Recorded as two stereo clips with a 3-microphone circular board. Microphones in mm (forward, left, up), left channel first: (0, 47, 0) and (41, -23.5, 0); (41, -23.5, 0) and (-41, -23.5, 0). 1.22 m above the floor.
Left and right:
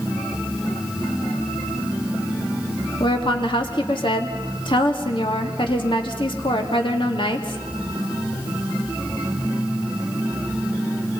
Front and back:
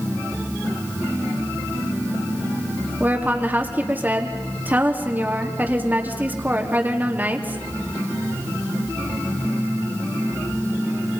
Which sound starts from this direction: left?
A woman speaking, at 3.0 s.